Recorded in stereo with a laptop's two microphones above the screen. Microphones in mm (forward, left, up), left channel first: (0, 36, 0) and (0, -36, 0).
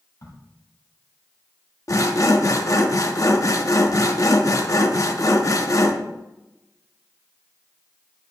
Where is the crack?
60° left (ahead or behind), 3.5 m.